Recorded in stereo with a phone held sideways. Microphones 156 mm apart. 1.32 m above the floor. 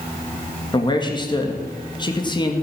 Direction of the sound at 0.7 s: 30° left (ahead or behind).